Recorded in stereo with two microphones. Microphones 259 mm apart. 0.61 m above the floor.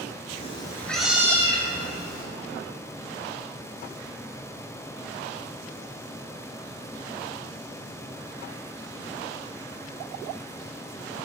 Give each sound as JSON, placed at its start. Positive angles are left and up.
{"t": 0.3, "sound": "a cat meowing", "side_deg": 30, "distance_m": 1.0}